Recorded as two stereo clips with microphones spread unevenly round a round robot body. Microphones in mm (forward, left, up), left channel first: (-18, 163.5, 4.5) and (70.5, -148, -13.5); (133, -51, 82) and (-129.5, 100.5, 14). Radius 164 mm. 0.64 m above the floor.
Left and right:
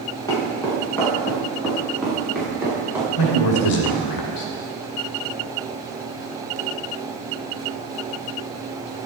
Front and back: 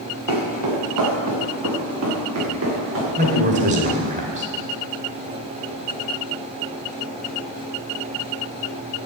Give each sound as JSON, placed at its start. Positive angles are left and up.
{"t": 0.3, "sound": "footsteps", "azimuth_deg": -175, "distance_m": 5.5}
{"t": 3.2, "sound": "a man speaking", "azimuth_deg": 90, "distance_m": 2.5}